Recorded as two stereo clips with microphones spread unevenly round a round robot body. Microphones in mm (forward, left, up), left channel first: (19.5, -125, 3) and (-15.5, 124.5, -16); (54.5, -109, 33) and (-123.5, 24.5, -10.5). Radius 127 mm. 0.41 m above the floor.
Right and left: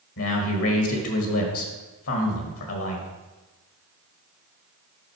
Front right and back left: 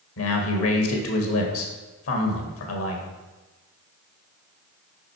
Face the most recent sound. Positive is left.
turn(degrees=-50)